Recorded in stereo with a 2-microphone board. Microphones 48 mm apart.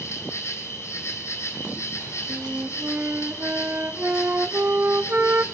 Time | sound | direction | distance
0.0 | an insect | 75° left (ahead or behind) | 3.5 m
2.3 | a flute | 45° right (ahead or behind) | 0.8 m